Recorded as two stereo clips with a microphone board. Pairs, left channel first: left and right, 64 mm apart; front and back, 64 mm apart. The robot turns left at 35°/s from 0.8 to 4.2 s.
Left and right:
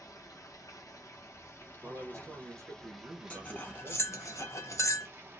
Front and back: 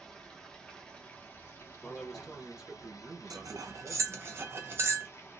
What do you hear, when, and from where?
0.0 s running water: 75° left, 0.7 m; by 5.4 s 45° right, 0.7 m
1.8 s a man speaking: 75° right, 1.0 m; by 4.3 s 155° right, 1.0 m
3.3 s cutlery clinking: 165° left, 0.5 m; by 5.1 s 130° left, 0.5 m